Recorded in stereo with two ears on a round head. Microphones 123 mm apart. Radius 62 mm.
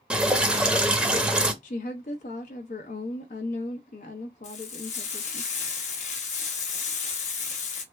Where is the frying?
60° left (ahead or behind), 0.9 m.